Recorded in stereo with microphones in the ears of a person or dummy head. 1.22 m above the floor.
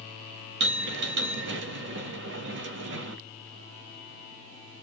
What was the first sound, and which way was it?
A bell, 60° right (ahead or behind).